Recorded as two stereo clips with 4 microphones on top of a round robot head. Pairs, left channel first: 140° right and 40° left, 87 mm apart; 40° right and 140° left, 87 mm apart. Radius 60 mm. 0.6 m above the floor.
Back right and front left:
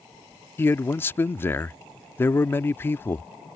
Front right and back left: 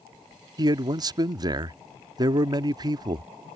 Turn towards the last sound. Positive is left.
turn(degrees=165)